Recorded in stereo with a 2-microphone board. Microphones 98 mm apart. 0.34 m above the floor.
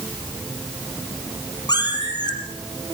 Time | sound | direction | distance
1.7 | a cat meowing | 45° left (ahead or behind) | 4 m